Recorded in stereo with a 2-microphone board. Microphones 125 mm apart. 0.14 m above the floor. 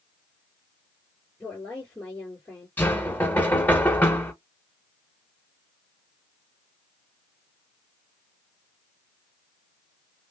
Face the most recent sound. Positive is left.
turn(degrees=15)  # may be behind; listen again after turning